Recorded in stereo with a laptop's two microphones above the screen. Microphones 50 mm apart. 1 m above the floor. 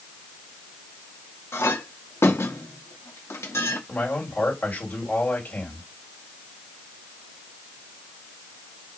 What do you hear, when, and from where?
1.5 s a clink: 70° left (ahead or behind), 0.7 m
3.9 s a man speaking: 30° left (ahead or behind), 2 m